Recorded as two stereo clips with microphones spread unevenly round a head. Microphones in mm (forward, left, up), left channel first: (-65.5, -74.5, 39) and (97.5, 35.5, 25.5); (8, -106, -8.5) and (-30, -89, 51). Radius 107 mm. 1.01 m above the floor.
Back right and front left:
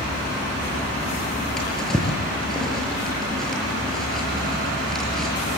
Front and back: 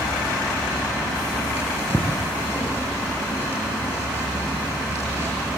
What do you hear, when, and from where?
1.6 s a drawer: 125° left, 6.5 m